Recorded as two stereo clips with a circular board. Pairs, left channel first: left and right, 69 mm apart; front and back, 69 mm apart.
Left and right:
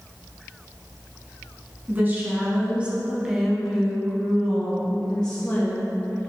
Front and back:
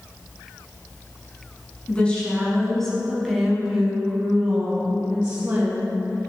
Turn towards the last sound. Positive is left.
turn(degrees=145)